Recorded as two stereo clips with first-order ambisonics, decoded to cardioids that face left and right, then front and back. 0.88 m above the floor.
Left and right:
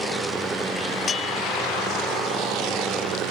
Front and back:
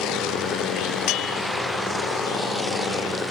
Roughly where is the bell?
Ahead.